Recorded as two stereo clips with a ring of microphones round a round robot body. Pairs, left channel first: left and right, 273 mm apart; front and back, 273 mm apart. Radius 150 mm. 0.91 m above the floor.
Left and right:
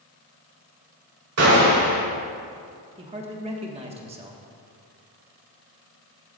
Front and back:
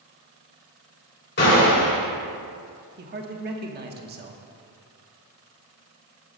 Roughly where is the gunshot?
Ahead right.